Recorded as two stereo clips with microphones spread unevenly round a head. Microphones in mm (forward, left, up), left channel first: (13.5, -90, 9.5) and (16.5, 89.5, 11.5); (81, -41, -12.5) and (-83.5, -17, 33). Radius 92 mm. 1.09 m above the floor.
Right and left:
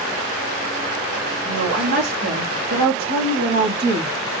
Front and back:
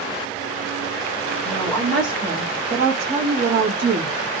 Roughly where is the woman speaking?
Left.